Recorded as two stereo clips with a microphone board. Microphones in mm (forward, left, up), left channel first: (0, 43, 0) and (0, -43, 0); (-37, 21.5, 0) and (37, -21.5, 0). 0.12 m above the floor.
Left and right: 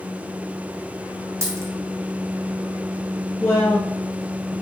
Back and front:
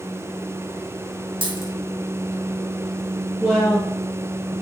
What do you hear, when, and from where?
1.4 s a dropped coin: 35° right, 2.5 m
3.4 s a woman speaking: 50° left, 1.9 m